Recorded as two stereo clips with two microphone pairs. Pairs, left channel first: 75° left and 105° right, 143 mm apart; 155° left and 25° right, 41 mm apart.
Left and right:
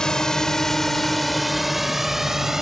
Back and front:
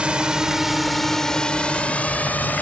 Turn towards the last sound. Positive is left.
turn(degrees=170)